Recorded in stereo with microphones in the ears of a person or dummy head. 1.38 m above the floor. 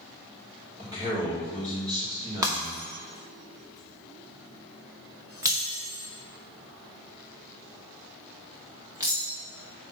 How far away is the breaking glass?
About 0.5 m.